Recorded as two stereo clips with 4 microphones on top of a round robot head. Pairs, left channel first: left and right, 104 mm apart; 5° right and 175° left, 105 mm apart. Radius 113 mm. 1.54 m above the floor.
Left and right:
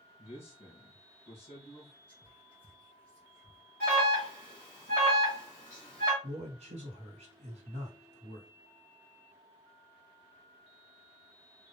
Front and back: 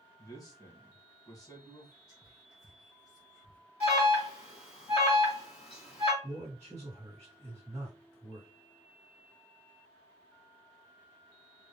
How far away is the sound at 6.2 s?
About 1.6 m.